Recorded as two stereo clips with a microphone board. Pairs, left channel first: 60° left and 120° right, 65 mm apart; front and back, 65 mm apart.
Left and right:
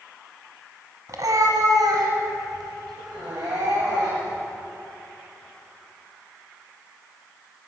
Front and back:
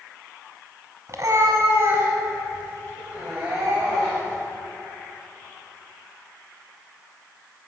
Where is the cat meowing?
145° right, 1.5 m; by 4.4 s 110° right, 5.5 m.